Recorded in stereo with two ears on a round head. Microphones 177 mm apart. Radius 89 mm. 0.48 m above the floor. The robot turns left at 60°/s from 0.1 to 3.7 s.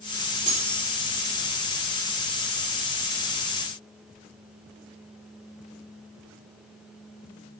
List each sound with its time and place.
0.5 s cutlery clinking: 30° right (ahead or behind), 6 m; by 0.8 s 55° right (ahead or behind), 6 m